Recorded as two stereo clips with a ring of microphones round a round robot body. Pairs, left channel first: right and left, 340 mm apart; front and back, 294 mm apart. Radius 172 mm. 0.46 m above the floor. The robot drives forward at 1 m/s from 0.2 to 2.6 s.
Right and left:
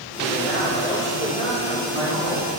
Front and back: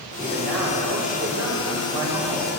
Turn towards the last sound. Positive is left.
turn(degrees=-170)